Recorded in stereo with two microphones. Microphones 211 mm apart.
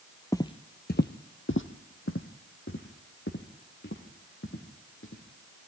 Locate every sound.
0.3 s footsteps: 15° left (ahead or behind), 0.8 m; by 5.2 s 65° left (ahead or behind), 4 m